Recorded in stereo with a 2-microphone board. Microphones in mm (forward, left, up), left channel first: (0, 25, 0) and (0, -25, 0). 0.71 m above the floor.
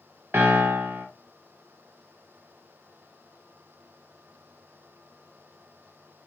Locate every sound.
0.3 s a piano: 45° right (ahead or behind), 0.7 m